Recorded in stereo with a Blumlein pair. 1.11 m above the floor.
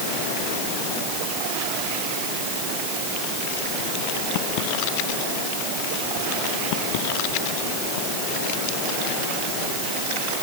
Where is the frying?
No frying in this recording.